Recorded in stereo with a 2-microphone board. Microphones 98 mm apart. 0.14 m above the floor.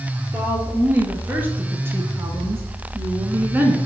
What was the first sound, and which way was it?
A woman speaking, 15° right (ahead or behind).